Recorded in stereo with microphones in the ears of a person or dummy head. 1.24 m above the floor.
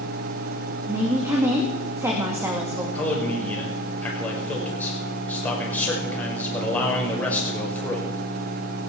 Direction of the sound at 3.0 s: 10° left (ahead or behind).